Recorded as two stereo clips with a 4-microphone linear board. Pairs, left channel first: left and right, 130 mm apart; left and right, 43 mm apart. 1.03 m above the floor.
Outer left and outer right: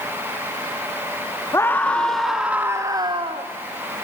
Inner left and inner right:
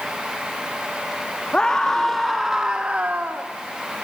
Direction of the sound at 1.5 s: 20° left (ahead or behind).